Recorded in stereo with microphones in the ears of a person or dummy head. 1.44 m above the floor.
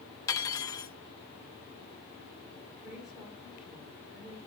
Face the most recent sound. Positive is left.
turn(degrees=-5)  # may be behind; listen again after turning